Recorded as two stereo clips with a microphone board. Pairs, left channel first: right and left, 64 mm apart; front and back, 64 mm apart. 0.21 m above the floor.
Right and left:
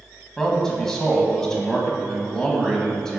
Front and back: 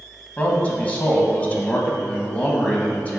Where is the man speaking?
25° right, 1.0 m.